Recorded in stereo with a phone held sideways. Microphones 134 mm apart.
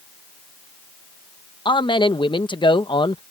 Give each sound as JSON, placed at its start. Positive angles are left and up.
{"t": 1.6, "sound": "a man speaking", "side_deg": 35}